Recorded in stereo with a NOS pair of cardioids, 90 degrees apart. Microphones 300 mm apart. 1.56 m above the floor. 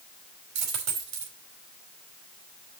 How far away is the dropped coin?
About 4 m.